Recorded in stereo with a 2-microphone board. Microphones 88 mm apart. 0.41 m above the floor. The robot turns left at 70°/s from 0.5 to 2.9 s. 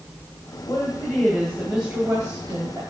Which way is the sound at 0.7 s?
70° left.